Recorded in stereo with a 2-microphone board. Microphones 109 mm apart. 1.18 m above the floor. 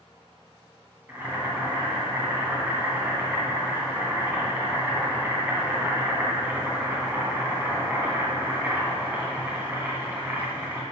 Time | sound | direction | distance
1.1 | boiling | 20° right (ahead or behind) | 2.5 m